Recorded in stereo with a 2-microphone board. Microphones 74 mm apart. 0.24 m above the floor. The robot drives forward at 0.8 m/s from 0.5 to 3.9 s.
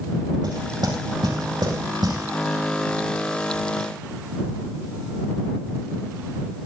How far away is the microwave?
No microwave in this recording.